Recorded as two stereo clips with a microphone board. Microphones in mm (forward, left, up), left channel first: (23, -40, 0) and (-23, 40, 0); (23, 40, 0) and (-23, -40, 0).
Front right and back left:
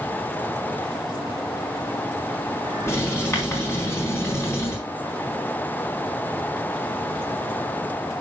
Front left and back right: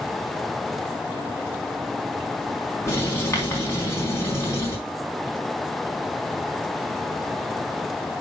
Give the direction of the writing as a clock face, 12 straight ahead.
12 o'clock.